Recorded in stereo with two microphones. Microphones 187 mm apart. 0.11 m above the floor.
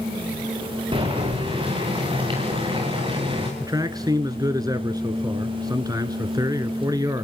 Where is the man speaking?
20° right (ahead or behind), 1.2 m.